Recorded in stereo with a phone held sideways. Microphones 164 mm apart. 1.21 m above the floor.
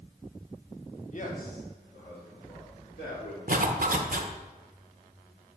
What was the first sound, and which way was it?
A man speaking, 45° left (ahead or behind).